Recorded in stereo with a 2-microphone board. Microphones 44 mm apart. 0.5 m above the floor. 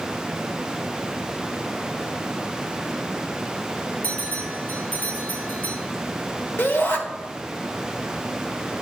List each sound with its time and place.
4.0 s a bell: 45° left (ahead or behind), 3 m
6.6 s a shout: 55° left (ahead or behind), 1.8 m